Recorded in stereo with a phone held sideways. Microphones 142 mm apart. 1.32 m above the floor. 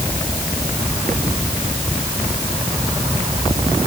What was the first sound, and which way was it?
Only background noise.